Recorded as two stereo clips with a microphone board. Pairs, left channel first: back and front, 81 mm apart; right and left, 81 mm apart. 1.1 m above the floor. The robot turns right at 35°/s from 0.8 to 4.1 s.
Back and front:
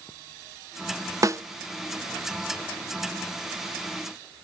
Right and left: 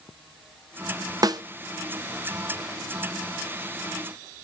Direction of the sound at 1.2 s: 50° left.